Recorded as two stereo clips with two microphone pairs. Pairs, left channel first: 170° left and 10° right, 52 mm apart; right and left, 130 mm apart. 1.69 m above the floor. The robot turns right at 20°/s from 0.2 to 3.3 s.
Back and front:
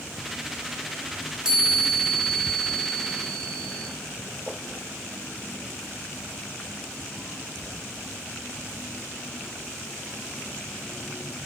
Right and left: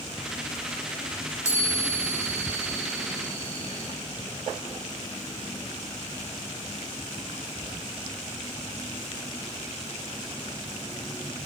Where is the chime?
65° left, 1.1 m; by 3.9 s 105° left, 1.1 m.